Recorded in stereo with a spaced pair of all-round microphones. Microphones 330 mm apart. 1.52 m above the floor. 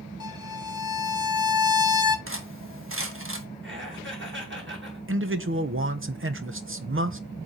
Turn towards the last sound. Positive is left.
turn(degrees=-40)  # may be behind; listen again after turning